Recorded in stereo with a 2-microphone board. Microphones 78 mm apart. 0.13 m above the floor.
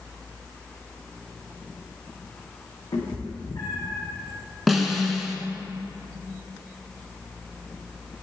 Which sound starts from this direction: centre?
A snare drum, at 4.7 s.